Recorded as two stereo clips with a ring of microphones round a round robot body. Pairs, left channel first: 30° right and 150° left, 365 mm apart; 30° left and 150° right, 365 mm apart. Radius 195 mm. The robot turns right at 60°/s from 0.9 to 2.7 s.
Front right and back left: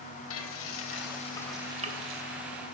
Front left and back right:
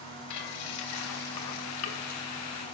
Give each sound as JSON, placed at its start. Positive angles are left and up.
{"t": 0.3, "sound": "frying", "azimuth_deg": 20, "distance_m": 1.1}